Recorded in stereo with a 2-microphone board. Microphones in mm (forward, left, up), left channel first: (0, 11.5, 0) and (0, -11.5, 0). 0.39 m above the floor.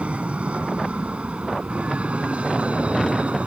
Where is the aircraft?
65° right (ahead or behind).